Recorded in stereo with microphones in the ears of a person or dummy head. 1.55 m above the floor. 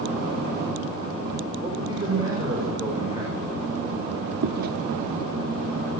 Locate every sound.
1.6 s a man speaking: 20° right (ahead or behind), 6.5 m
4.4 s chewing: 55° right (ahead or behind), 1.0 m